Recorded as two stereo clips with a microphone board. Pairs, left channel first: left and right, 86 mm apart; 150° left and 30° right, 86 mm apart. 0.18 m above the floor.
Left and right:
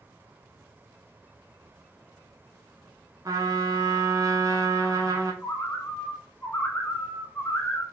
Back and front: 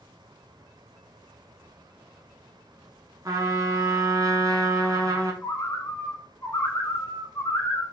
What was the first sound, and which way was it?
A trumpet, 60° right.